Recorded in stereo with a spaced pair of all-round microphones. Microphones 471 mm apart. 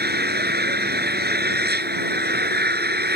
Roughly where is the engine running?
Right.